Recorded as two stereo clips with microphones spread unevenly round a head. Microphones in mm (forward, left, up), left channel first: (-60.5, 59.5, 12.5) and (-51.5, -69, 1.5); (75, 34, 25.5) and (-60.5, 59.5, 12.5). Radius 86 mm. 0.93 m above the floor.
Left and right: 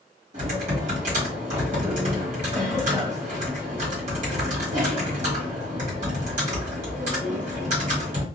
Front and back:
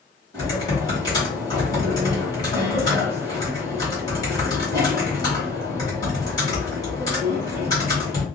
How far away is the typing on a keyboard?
About 1.3 m.